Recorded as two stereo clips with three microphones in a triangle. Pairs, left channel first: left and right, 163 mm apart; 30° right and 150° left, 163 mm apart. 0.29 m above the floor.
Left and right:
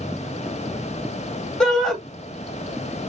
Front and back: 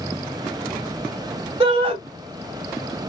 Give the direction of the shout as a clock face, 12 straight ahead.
6 o'clock.